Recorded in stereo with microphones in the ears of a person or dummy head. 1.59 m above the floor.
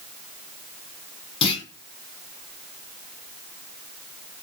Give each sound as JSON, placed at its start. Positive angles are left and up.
{"t": 1.4, "sound": "a clunk", "side_deg": 35, "distance_m": 4.0}